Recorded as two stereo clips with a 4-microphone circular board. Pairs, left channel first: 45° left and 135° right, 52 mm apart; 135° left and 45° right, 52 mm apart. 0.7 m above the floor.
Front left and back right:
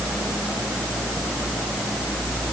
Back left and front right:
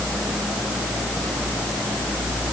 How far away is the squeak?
I don't hear a squeak.